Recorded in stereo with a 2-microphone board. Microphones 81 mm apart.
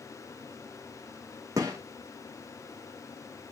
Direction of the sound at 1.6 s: 45° right (ahead or behind).